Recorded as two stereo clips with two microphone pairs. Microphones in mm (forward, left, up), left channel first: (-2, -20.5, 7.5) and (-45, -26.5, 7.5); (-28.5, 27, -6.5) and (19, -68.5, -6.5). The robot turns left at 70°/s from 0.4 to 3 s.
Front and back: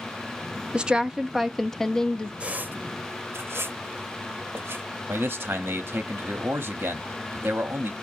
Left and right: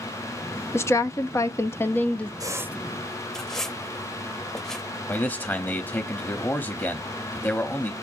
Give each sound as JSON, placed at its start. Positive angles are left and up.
{"t": 0.7, "sound": "a woman speaking", "azimuth_deg": 150, "distance_m": 0.6}
{"t": 2.4, "sound": "a squeak", "azimuth_deg": -115, "distance_m": 0.6}
{"t": 5.1, "sound": "a man speaking", "azimuth_deg": -175, "distance_m": 0.8}